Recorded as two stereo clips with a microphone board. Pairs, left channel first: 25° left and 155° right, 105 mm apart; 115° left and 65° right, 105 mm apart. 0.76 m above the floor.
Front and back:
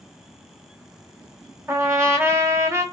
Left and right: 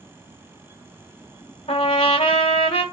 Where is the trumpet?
135° left, 1.0 m.